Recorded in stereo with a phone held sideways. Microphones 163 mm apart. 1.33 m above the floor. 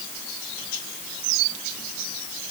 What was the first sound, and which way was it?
Only background noise.